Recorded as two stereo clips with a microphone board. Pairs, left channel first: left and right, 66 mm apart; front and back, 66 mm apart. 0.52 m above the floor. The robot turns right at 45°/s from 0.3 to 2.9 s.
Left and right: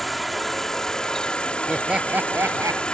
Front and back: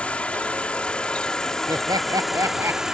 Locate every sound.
0.0 s an insect: 5° left; by 2.9 s 120° left
1.7 s laughter: straight behind; by 2.8 s 125° right